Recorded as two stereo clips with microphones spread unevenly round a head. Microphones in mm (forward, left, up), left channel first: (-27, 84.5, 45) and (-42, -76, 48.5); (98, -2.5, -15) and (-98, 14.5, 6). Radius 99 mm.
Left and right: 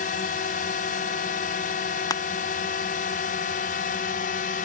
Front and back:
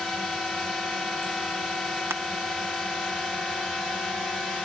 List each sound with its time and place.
0.0 s a drone: 85° left
2.1 s crushing: 100° left